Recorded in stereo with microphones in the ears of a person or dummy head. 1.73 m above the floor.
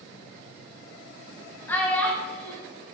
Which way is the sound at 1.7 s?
10° left (ahead or behind).